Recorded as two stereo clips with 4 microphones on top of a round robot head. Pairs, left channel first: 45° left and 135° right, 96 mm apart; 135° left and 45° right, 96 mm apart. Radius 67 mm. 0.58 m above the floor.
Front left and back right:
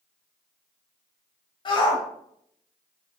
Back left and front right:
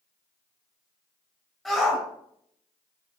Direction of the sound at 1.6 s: 45° left.